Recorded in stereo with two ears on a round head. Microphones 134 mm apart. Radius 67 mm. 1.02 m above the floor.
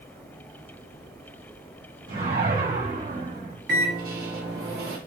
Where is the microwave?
65° right (ahead or behind), 1.6 m.